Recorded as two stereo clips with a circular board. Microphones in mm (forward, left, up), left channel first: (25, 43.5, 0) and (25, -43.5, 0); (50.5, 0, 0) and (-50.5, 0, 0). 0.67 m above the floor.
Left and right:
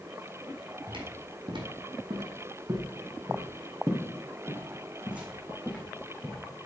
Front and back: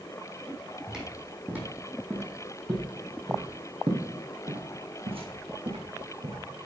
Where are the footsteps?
95° right, 1.9 m; by 6.4 s 175° right, 2.5 m.